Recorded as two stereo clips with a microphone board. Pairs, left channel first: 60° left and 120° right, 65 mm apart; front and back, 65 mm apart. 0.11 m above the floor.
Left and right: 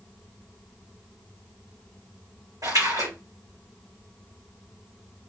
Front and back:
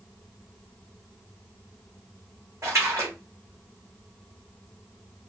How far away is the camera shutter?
I don't hear a camera shutter.